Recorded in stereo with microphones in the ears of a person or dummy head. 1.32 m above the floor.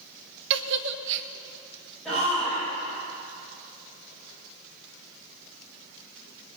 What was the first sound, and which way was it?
A giggle, 65° right (ahead or behind).